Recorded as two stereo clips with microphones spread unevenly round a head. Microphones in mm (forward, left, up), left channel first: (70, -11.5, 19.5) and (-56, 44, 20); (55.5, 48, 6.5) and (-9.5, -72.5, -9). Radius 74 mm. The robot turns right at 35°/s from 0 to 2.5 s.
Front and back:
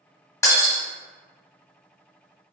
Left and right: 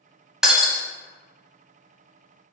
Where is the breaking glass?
20° right, 0.9 m; by 0.8 s 10° right, 0.9 m.